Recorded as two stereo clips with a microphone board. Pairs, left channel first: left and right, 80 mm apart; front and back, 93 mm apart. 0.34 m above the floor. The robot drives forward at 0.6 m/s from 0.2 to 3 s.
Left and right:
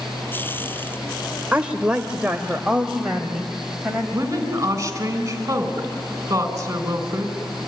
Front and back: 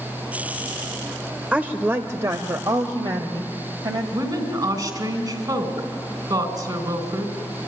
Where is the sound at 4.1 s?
140° right, 3.5 m.